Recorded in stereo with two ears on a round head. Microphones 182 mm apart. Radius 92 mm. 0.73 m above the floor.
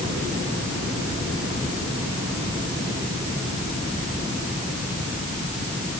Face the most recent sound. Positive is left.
No sound to turn to.